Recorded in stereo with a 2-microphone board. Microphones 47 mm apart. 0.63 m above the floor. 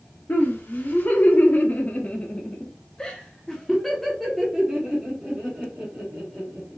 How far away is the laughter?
About 1.6 m.